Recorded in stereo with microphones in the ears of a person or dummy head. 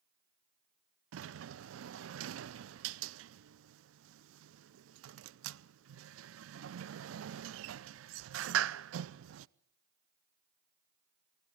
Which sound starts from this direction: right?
A sliding door, at 1.1 s.